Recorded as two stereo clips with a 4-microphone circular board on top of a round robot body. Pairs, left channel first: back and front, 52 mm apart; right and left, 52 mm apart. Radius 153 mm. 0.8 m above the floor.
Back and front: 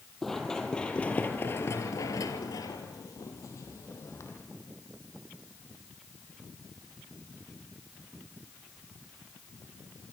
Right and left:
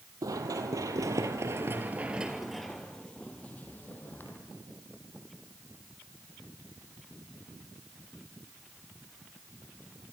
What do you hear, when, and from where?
0.2 s running footsteps: 95° left, 2 m; by 4.4 s 140° right, 3 m